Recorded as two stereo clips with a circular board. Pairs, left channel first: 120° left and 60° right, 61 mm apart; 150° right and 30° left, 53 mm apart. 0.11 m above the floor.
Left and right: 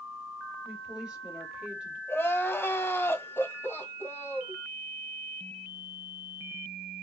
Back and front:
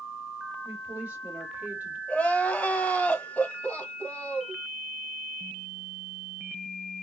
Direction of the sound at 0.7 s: Straight ahead.